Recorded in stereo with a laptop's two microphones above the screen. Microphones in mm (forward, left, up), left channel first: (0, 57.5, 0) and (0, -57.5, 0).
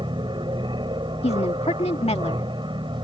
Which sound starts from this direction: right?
An aircraft, at 0.0 s.